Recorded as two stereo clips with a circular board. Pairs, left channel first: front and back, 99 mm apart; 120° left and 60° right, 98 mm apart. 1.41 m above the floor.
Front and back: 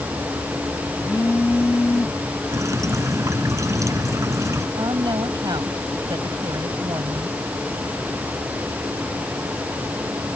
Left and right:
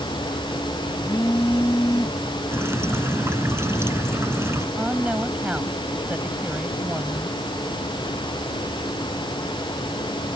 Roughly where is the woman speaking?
Behind right.